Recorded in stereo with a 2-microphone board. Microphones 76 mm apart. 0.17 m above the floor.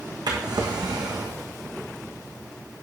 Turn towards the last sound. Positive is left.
turn(degrees=-75)  # may be behind; listen again after turning